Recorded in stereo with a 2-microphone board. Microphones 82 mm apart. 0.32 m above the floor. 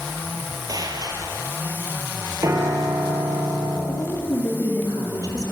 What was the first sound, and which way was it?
A gunshot, 50° right (ahead or behind).